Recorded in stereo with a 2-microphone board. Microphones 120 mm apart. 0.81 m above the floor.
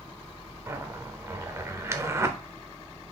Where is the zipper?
25° right (ahead or behind), 0.5 m.